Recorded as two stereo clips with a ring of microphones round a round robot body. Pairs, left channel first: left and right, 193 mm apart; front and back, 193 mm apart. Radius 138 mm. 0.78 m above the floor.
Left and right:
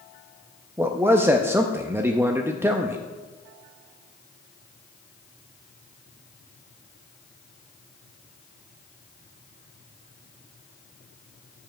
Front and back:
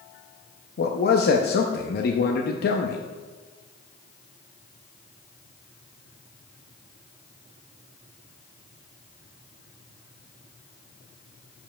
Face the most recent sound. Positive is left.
turn(degrees=-15)